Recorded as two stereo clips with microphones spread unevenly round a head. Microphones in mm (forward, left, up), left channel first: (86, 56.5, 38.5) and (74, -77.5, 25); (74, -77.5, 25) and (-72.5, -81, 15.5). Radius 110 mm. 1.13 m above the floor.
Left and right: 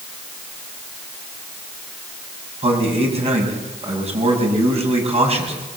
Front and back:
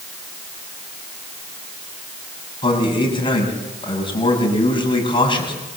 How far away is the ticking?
No ticking in this recording.